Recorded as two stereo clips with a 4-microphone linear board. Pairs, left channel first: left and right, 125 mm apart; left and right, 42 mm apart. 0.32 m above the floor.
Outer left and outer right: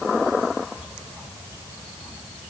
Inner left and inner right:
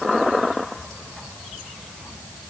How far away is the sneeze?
I don't hear a sneeze.